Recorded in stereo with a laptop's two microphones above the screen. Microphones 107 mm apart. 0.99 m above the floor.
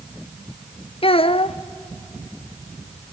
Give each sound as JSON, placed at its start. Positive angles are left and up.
{"t": 1.0, "sound": "a child speaking", "side_deg": 60, "distance_m": 0.6}